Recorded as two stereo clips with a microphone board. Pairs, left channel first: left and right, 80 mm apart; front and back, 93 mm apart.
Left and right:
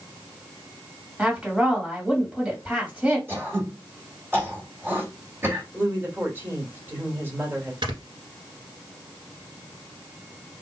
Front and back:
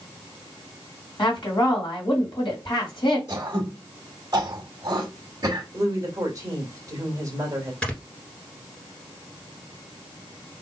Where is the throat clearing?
145° right, 1.8 m.